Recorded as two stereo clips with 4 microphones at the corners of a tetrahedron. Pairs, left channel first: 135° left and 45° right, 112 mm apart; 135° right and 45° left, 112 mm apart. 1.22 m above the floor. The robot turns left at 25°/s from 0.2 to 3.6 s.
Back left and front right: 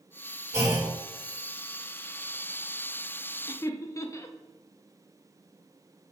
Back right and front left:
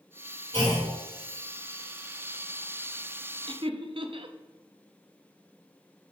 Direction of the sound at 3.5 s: 80° left.